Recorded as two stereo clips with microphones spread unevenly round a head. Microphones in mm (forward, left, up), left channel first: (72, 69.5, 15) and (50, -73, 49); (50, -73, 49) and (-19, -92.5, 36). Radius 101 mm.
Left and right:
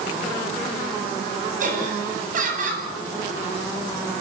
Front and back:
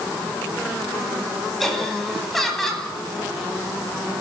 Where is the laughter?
70° right, 9.5 m.